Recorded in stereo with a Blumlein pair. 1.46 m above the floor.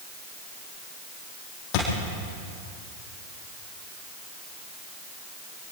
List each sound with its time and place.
1.7 s a thud: 40° left, 7.5 m